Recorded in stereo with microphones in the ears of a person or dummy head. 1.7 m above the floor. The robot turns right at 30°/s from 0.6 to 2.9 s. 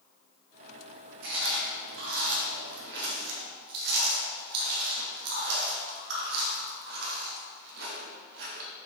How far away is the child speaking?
No child speaking in this recording.